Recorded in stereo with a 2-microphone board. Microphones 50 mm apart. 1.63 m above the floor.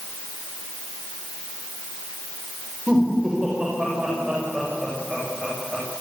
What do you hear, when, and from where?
2.9 s laughter: 20° right (ahead or behind), 8.5 m; by 5.8 s 15° right (ahead or behind), 11 m